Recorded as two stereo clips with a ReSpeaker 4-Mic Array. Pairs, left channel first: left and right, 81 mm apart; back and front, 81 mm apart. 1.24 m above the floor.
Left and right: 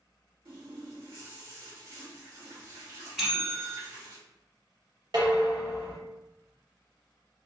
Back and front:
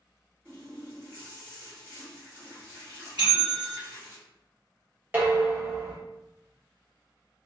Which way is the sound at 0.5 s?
60° right.